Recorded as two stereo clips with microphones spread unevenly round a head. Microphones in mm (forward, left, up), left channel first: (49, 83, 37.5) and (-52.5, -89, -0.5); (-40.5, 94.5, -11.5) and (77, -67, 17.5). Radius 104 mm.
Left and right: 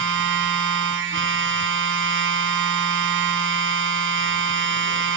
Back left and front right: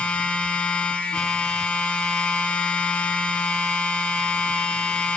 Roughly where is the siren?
I don't hear a siren.